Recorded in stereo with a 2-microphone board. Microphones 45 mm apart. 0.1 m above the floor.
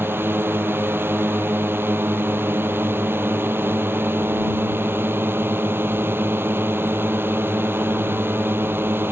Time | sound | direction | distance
0.0 | a drone | 60° right (ahead or behind) | ?